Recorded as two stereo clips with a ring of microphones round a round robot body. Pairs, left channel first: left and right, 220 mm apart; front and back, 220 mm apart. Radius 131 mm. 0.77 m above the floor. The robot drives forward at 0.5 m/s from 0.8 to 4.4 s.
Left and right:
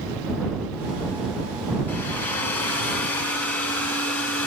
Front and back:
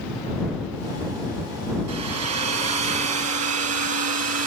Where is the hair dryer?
175° left, 4.5 m.